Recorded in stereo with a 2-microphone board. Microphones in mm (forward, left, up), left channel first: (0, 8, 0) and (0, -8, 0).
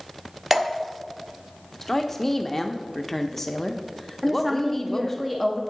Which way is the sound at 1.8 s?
10° left (ahead or behind).